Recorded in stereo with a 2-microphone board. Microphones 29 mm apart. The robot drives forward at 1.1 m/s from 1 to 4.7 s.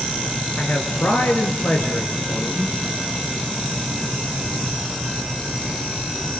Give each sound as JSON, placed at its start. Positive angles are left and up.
{"t": 0.6, "sound": "a man speaking", "side_deg": 80, "distance_m": 5.0}